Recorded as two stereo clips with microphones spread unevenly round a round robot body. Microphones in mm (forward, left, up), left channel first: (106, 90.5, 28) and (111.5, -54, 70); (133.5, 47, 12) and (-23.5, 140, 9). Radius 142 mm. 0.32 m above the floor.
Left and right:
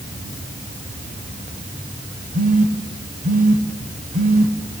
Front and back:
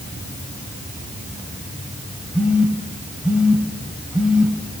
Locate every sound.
2.3 s a phone buzzing: 125° right, 1.1 m